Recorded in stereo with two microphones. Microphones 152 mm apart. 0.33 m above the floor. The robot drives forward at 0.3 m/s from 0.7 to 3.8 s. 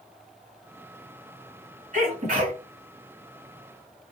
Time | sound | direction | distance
1.9 | a sneeze | 60° right (ahead or behind) | 2.5 m